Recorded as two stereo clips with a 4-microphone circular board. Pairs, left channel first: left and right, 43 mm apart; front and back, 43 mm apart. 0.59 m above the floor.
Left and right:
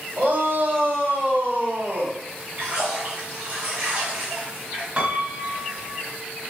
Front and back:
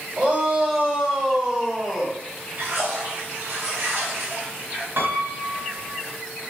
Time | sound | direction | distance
0.2 | a shout | 120° right | 3 m
2.6 | a splash | 150° right | 4.5 m
5.0 | a piano | 150° right | 1.8 m